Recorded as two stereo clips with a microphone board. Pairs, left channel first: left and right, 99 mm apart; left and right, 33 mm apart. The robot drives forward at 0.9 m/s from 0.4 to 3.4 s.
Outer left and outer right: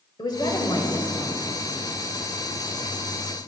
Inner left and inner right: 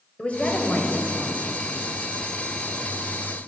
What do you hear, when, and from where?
0.2 s a woman speaking: 45° left (ahead or behind), 1.9 m; by 1.5 s 35° left (ahead or behind), 2.5 m